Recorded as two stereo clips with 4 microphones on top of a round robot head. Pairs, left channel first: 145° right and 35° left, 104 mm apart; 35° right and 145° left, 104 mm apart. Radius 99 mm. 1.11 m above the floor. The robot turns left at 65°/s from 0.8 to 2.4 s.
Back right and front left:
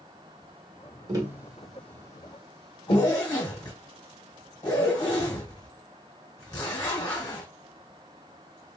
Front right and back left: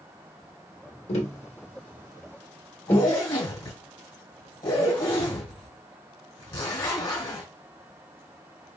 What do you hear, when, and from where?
1.1 s tapping: 20° right, 1.5 m; by 3.1 s 105° right, 1.5 m
2.9 s a zipper: 90° right, 1.8 m